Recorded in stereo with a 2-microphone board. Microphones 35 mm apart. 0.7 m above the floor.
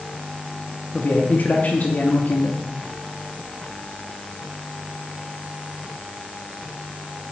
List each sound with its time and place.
0.9 s a man speaking: 50° left (ahead or behind), 0.8 m